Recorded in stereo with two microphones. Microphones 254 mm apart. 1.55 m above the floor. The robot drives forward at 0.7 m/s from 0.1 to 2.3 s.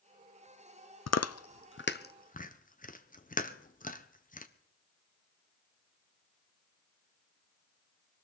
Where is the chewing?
80° left, 0.5 m; by 4.5 s 35° left (ahead or behind), 0.9 m.